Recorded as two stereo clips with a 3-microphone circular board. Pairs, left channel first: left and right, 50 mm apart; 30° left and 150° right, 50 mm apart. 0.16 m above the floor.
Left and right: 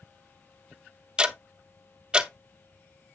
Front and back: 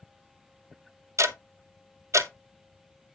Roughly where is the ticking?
Behind.